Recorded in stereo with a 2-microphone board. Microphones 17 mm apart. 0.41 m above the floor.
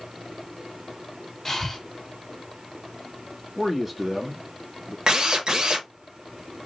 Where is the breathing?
10° left (ahead or behind), 1.2 m.